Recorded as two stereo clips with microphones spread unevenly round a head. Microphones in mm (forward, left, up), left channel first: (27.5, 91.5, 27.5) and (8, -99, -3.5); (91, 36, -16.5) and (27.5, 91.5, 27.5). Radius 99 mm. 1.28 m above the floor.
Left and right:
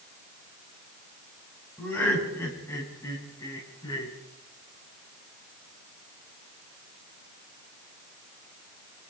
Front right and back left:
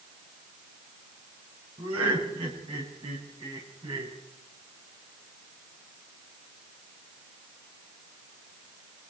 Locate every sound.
1.8 s laughter: 165° left, 8 m; by 4.1 s 155° left, 8 m